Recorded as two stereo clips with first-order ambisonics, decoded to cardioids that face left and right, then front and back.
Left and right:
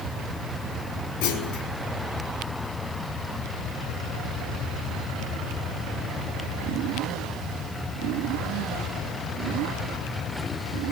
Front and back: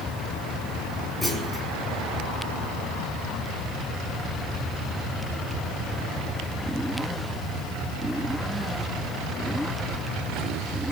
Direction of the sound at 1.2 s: 100° left.